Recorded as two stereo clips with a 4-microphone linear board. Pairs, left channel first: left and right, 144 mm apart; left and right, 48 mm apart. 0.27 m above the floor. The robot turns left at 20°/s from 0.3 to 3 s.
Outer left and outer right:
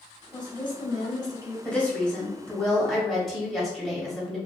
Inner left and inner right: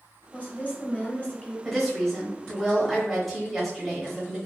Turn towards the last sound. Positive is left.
turn(degrees=0)  # may be behind; listen again after turning